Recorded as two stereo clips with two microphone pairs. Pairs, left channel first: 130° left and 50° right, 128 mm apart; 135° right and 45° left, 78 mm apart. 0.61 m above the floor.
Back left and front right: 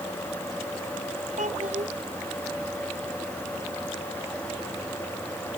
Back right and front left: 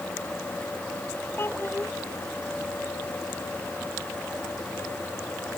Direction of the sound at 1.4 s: 75° right.